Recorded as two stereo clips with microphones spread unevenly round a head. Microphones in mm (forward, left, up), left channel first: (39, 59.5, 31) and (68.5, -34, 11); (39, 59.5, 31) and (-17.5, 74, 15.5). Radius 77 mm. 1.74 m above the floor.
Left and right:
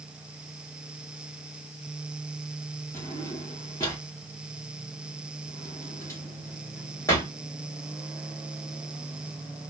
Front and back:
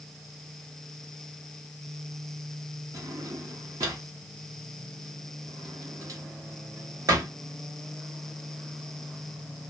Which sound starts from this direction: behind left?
A drawer, at 2.9 s.